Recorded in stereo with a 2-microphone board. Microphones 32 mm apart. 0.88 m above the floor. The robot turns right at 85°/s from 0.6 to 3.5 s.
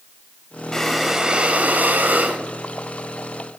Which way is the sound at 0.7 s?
160° left.